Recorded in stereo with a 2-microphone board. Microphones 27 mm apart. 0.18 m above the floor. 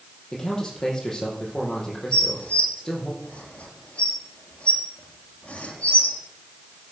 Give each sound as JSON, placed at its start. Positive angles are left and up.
{"t": 0.3, "sound": "a man speaking", "side_deg": 15, "distance_m": 5.5}
{"t": 2.1, "sound": "dishes clattering", "side_deg": 45, "distance_m": 3.0}